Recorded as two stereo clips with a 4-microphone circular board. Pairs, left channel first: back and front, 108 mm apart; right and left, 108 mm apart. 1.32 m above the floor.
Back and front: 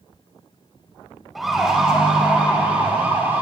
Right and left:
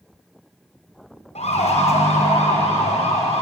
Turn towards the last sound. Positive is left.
turn(degrees=-70)